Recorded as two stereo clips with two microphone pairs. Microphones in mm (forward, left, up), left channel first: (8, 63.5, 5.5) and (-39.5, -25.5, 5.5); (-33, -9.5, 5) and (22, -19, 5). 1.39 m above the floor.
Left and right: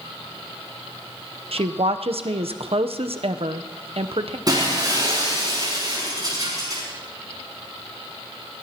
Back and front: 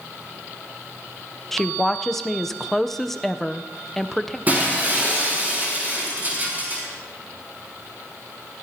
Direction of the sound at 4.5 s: 70° right.